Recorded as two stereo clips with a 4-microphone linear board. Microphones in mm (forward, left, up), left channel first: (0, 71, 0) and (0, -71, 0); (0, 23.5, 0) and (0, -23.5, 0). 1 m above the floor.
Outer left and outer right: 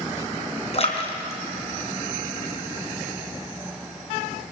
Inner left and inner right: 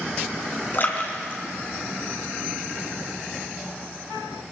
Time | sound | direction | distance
0.7 | a splash | 45° left (ahead or behind) | 3.5 m